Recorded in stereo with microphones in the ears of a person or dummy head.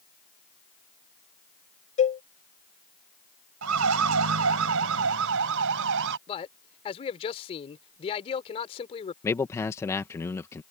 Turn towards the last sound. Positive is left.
turn(degrees=10)  # may be behind; listen again after turning